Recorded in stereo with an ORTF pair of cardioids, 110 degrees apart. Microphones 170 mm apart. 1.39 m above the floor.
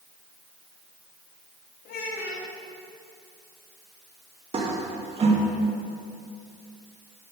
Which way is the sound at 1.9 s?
60° left.